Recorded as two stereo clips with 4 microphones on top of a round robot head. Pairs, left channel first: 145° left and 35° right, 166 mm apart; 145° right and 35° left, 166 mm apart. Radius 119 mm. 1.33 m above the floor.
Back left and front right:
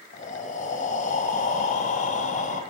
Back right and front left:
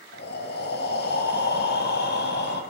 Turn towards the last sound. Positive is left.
turn(degrees=-170)